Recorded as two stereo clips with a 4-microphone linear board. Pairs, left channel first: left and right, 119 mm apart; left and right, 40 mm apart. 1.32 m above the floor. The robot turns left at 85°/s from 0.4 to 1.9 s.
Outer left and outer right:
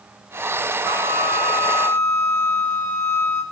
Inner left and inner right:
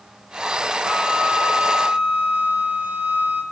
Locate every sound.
0.8 s a flute: 50° right, 4 m; by 3.4 s 140° right, 4 m